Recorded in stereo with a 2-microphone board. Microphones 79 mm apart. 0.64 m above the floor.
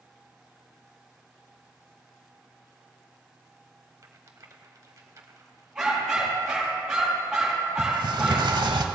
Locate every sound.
4.0 s a rattle: 45° right (ahead or behind), 1.1 m
5.8 s a dog barking: 5° right (ahead or behind), 4.5 m
7.8 s a sliding door: 75° right (ahead or behind), 0.9 m